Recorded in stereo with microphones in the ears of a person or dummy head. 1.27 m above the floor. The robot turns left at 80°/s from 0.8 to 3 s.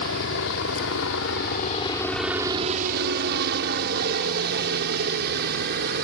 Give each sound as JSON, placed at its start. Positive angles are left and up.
{"t": 0.0, "sound": "a helicopter", "side_deg": 60}